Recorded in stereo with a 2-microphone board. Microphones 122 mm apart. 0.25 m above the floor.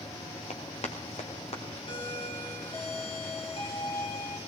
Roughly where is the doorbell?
Left.